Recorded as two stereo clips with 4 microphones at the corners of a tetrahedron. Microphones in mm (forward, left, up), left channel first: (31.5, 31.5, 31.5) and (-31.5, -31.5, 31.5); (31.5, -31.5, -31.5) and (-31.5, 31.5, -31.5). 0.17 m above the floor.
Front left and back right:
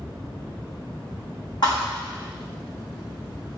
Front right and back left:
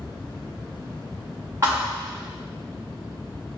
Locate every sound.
1.6 s a thud: 80° left, 3 m